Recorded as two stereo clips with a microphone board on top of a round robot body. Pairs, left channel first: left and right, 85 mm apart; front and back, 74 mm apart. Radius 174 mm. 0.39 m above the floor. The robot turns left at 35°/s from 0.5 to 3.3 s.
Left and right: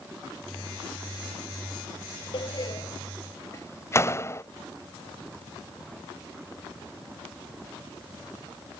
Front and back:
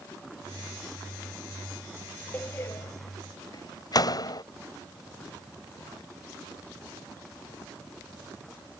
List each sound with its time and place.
2.3 s a door slam: 65° left; by 4.4 s 30° left